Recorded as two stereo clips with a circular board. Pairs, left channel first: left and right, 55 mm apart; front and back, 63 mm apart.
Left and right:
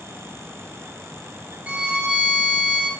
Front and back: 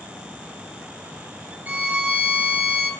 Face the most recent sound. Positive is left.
turn(degrees=-140)